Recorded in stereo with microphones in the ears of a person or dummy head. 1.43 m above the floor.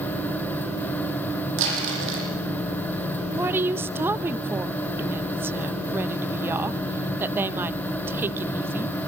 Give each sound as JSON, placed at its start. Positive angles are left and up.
{"t": 1.6, "sound": "crumpling", "side_deg": -80, "distance_m": 8.5}
{"t": 3.3, "sound": "a woman speaking", "side_deg": -20, "distance_m": 1.0}